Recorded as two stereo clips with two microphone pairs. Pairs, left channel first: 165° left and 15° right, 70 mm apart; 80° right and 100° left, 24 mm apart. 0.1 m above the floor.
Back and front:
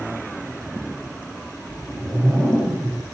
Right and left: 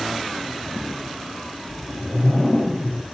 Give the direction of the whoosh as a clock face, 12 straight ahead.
3 o'clock.